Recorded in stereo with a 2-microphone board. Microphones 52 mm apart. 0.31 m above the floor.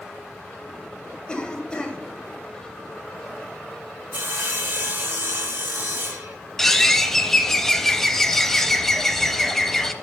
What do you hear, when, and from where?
1.3 s a cough: 20° left (ahead or behind), 1.5 m
4.1 s sawing: 45° right (ahead or behind), 1.1 m
6.6 s a bird: 5° left (ahead or behind), 0.5 m